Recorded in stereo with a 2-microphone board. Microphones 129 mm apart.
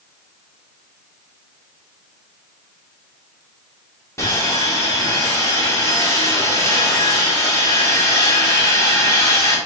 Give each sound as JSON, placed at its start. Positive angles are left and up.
{"t": 4.2, "sound": "sawing", "side_deg": 20, "distance_m": 1.7}